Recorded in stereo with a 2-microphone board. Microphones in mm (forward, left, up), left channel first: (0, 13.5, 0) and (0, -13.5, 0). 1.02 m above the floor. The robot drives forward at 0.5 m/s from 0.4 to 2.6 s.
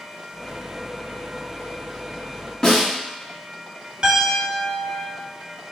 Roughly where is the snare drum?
Left.